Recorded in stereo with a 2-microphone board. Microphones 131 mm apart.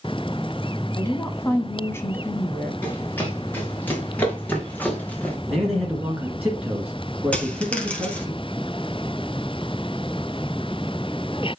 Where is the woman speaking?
20° left (ahead or behind), 1.1 m.